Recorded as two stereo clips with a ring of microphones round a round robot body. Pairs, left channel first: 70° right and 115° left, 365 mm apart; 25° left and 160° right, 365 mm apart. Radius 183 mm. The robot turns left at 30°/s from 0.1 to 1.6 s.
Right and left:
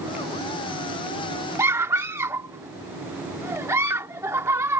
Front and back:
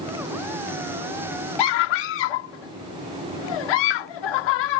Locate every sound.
1.6 s a scream: 30° left